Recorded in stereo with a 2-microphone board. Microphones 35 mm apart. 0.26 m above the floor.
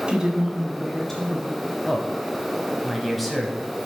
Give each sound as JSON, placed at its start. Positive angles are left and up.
{"t": 0.1, "sound": "a woman speaking", "side_deg": -35, "distance_m": 1.6}
{"t": 1.9, "sound": "a man speaking", "side_deg": 5, "distance_m": 1.4}